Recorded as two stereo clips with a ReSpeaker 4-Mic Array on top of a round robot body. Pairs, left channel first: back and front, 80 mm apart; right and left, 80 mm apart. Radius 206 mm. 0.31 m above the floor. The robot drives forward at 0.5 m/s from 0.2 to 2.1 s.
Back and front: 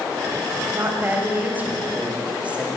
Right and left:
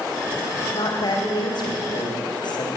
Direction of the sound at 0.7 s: 60° right.